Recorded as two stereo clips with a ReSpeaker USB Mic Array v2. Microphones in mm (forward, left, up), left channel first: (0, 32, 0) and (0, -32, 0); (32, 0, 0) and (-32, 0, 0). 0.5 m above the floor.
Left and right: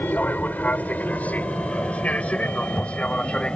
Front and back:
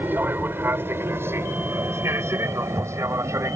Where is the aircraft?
140° left; by 3.6 s 160° left.